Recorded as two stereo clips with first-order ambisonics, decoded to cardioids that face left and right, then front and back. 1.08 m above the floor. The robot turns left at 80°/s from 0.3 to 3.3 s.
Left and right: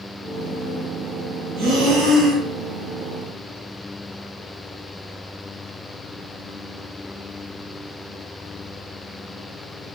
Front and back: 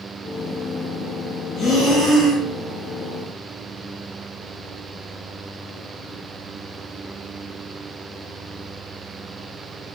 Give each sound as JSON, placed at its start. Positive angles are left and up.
{"t": 1.6, "sound": "breathing", "azimuth_deg": -65, "distance_m": 0.8}